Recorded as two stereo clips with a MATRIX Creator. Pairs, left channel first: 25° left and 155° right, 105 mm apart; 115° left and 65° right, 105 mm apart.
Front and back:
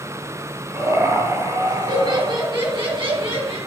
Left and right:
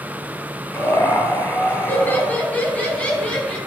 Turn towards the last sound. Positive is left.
turn(degrees=-170)